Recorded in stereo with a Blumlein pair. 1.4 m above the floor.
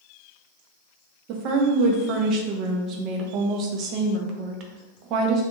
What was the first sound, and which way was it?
A woman speaking, 35° right.